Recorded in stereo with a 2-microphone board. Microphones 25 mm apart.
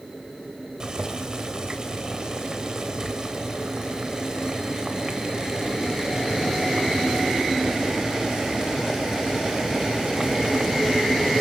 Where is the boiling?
30° right (ahead or behind), 3 m.